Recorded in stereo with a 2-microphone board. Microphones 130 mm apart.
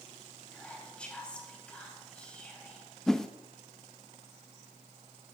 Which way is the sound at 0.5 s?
10° left (ahead or behind).